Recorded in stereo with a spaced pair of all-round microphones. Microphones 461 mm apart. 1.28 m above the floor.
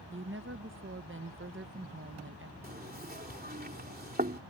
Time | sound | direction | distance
0.1 | a woman speaking | 25° right (ahead or behind) | ?
2.6 | knocking | 20° right (ahead or behind) | ?